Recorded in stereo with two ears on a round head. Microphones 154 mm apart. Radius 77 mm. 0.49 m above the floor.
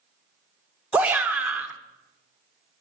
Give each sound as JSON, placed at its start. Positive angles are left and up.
{"t": 0.9, "sound": "a shout", "side_deg": -10, "distance_m": 1.0}